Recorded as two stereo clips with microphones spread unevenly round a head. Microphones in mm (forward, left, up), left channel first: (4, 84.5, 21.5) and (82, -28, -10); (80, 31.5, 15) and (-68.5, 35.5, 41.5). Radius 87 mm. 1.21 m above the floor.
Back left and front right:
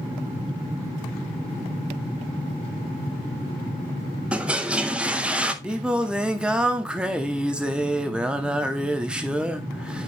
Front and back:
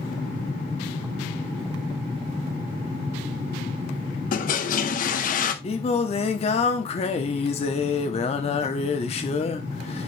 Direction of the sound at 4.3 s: 30° left.